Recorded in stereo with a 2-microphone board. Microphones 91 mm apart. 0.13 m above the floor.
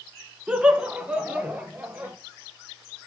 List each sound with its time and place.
0.5 s laughter: 10° right (ahead or behind), 1.3 m; by 2.1 s 15° right (ahead or behind), 3 m